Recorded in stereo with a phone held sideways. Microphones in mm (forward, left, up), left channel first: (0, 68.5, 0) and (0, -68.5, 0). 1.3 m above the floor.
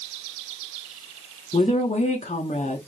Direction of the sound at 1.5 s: 60° left (ahead or behind).